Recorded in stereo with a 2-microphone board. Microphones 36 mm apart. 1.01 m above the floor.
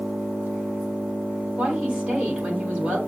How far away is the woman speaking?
About 3.5 m.